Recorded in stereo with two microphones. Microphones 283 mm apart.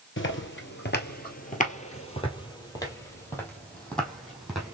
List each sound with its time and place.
0.2 s footsteps: 45° left (ahead or behind), 1.4 m; by 4.8 s centre (ahead or behind), 2.5 m